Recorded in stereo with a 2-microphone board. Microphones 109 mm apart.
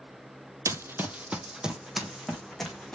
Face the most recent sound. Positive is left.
turn(degrees=5)  # may be behind; listen again after turning